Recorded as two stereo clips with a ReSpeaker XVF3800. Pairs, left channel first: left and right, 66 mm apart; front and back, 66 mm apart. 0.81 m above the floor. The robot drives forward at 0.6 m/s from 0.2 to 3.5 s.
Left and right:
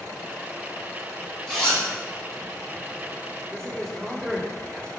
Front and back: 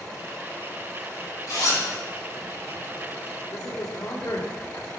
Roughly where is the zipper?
Ahead.